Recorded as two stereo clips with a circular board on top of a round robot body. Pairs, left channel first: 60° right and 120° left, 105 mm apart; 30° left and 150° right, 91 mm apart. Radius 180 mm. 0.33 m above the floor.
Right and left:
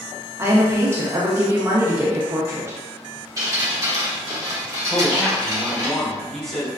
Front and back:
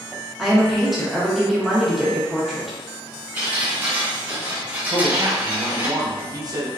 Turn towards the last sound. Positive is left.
turn(degrees=-145)